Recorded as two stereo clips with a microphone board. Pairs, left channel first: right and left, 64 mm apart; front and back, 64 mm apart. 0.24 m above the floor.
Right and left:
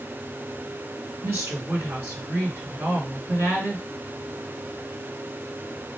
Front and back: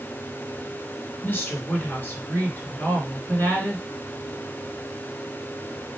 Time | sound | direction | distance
1.2 | a woman speaking | 50° left | 2.5 m